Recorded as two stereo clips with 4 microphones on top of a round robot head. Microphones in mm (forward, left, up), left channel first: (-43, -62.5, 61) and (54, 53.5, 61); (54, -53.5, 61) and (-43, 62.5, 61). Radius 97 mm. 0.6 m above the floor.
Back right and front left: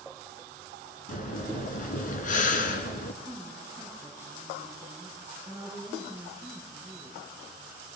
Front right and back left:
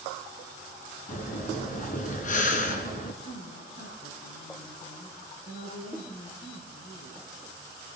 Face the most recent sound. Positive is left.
turn(degrees=-20)